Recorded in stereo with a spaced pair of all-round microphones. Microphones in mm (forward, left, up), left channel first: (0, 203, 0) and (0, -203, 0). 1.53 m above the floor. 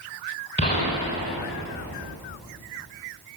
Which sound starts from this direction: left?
A gunshot, at 0.6 s.